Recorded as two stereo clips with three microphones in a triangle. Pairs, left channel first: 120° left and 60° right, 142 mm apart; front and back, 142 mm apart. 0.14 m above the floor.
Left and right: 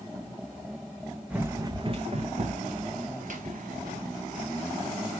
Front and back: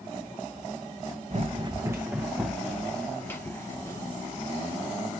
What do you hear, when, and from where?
1.3 s running footsteps: 140° right, 0.6 m; by 5.0 s 65° right, 2 m